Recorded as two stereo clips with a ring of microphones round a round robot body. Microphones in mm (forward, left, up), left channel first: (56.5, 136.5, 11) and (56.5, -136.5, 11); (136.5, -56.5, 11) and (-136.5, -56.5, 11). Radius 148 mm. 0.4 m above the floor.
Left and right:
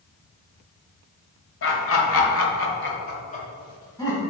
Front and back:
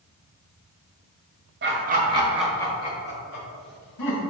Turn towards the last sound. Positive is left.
turn(degrees=10)